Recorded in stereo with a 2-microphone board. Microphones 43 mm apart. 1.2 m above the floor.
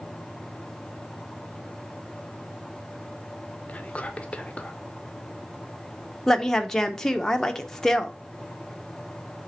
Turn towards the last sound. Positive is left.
turn(degrees=15)  # may be behind; listen again after turning